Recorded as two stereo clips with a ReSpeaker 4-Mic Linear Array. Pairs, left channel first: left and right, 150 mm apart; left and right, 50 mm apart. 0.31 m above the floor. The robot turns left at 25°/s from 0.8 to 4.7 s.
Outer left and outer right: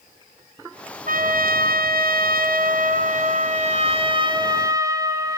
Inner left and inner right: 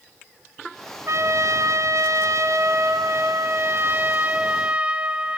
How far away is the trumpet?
About 1.7 m.